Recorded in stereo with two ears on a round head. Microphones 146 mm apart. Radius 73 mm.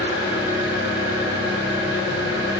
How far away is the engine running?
About 8 m.